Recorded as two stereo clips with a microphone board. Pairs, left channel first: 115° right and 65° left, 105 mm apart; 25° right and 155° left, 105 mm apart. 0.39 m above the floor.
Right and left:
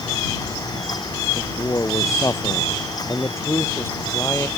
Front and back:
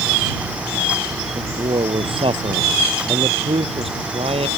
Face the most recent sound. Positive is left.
turn(degrees=180)